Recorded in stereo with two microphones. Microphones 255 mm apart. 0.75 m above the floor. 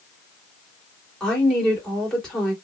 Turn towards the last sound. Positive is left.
turn(degrees=0)  # may be behind; listen again after turning